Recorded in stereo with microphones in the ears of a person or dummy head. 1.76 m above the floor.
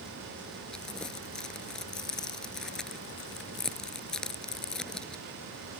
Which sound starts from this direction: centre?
Crumpling, at 0.7 s.